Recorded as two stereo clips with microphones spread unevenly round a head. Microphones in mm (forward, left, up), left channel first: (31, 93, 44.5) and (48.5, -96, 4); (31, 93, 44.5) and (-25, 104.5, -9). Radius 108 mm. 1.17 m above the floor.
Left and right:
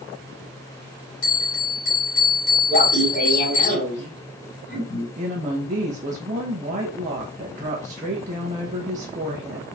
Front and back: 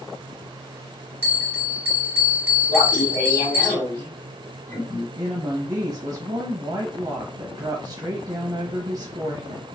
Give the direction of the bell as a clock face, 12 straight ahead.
9 o'clock.